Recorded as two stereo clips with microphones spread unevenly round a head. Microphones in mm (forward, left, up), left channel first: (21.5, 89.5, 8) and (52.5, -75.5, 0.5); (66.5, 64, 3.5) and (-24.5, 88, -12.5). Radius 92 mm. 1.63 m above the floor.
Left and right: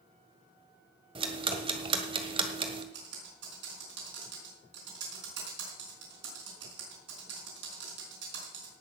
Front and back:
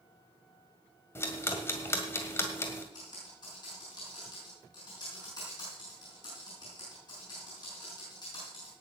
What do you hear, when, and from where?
1.1 s ticking: 40° right, 1.7 m
2.9 s typing on a keyboard: 75° right, 5.5 m